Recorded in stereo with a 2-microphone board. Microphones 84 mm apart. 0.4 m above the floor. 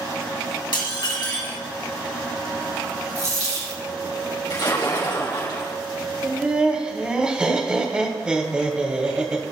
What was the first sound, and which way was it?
Dishes clattering, 60° left (ahead or behind).